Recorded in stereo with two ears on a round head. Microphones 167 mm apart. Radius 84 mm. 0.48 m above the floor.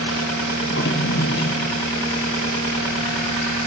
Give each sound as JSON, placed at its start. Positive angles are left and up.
{"t": 0.6, "sound": "a drawer", "side_deg": 65, "distance_m": 3.0}